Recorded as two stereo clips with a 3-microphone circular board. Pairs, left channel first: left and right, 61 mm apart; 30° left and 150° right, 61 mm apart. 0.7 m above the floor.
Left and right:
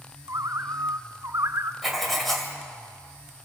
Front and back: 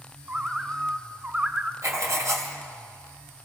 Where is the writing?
Straight behind, 2.5 m.